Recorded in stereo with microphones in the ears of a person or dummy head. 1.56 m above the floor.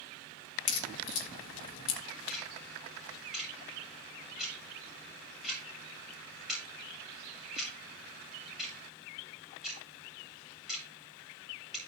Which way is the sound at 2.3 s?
Centre (ahead or behind).